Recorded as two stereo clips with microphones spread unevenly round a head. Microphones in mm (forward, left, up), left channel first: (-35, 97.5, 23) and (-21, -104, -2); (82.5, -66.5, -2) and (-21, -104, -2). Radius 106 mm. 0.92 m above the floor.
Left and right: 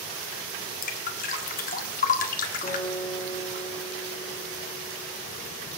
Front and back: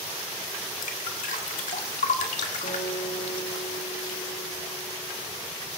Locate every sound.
0.8 s dripping: 40° left, 1.6 m
2.6 s a guitar: 20° left, 8 m